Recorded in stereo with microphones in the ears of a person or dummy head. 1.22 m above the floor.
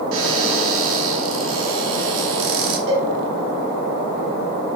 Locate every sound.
0.1 s a cupboard door: 75° right (ahead or behind), 3.5 m
2.9 s a cowbell: 80° right, 5 m